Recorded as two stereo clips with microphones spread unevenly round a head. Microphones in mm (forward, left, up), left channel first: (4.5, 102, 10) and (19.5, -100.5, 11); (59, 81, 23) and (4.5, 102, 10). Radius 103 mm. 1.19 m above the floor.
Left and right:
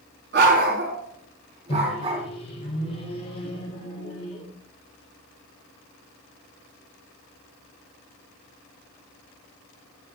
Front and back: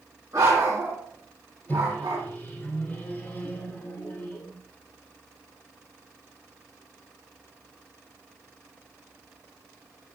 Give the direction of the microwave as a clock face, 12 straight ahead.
11 o'clock.